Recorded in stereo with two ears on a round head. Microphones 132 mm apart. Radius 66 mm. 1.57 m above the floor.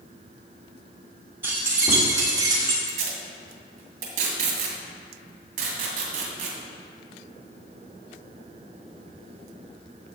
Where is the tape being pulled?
60° right (ahead or behind), 2.5 m.